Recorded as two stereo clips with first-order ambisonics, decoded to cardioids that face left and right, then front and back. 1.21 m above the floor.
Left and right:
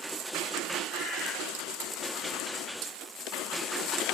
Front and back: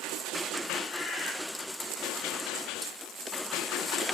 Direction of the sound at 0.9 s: 50° left.